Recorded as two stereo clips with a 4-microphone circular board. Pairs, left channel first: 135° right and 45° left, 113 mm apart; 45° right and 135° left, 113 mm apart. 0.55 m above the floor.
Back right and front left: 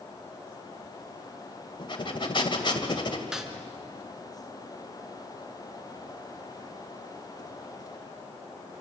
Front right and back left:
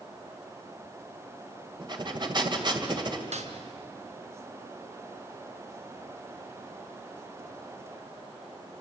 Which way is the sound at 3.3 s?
130° left.